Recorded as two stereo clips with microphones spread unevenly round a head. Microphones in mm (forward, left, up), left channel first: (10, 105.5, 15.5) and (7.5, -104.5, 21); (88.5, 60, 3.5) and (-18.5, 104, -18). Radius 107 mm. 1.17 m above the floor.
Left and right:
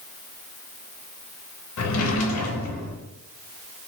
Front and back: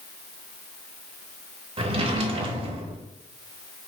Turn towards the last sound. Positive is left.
turn(degrees=115)